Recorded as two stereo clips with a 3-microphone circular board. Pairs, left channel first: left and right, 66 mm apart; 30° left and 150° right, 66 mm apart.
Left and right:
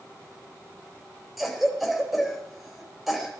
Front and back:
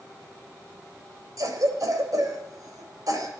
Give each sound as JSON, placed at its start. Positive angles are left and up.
{"t": 1.4, "sound": "a cough", "azimuth_deg": -175, "distance_m": 3.5}